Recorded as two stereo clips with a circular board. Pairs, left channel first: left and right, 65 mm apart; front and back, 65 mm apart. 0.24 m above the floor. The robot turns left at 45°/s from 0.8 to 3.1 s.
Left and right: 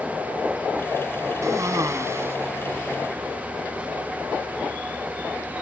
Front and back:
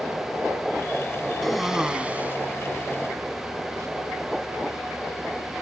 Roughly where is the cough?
Right.